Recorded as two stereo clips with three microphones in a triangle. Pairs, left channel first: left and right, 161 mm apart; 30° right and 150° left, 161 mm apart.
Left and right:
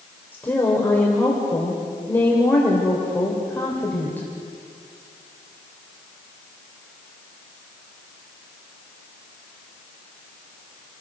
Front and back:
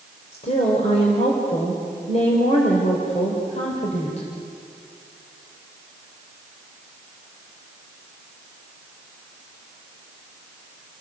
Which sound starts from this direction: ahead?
A woman speaking, at 0.3 s.